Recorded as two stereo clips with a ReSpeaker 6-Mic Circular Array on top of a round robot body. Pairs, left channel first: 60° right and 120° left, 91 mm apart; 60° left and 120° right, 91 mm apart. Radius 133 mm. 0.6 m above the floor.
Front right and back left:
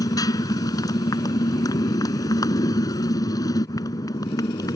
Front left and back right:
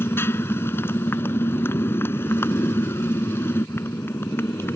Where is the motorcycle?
5° right.